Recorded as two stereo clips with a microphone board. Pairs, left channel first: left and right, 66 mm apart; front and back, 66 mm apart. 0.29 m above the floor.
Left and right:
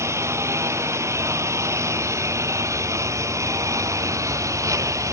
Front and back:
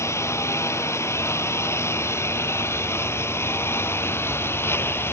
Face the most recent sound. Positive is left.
turn(degrees=-55)